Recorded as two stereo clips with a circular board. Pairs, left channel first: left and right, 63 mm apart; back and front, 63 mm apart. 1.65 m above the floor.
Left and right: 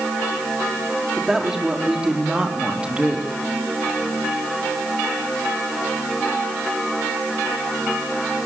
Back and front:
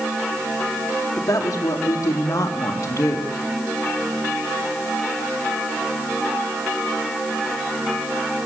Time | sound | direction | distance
1.2 | a woman speaking | 170° right | 3 m